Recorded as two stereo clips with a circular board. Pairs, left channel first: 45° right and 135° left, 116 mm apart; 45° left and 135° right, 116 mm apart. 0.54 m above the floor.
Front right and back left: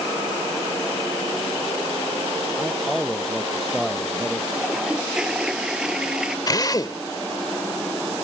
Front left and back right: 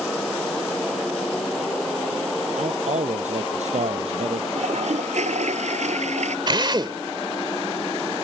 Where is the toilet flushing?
140° right.